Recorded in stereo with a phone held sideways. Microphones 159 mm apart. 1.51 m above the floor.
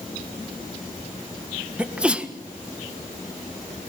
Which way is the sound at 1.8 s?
10° right (ahead or behind).